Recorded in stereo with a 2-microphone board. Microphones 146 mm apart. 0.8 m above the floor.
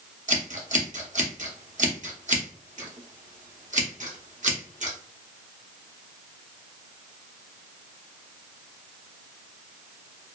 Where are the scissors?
55° right (ahead or behind), 0.7 m.